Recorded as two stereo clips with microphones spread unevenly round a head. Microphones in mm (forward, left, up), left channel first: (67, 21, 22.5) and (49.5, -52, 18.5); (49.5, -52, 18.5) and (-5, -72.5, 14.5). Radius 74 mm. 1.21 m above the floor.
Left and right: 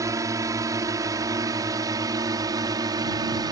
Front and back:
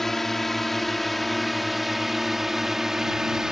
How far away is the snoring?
I don't hear snoring.